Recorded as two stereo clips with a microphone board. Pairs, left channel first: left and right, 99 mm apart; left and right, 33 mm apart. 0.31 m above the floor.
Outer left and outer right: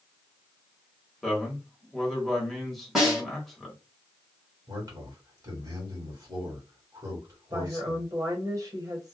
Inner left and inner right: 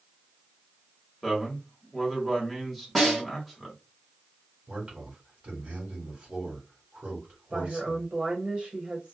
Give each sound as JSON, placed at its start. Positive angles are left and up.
{"t": 1.2, "sound": "a man speaking", "side_deg": 0, "distance_m": 1.1}
{"t": 3.0, "sound": "a snare drum", "side_deg": -5, "distance_m": 1.3}
{"t": 4.7, "sound": "a man speaking", "side_deg": -35, "distance_m": 1.6}
{"t": 7.5, "sound": "a woman speaking", "side_deg": -35, "distance_m": 1.1}